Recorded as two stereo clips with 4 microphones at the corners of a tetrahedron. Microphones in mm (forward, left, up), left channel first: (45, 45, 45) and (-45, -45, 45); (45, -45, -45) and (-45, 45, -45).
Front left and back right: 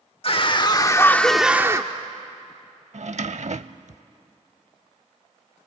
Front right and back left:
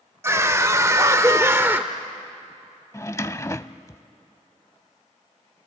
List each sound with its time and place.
0.2 s a scream: 70° left, 1.2 m; by 1.9 s 165° right, 0.8 m
2.9 s a drawer: 115° right, 0.5 m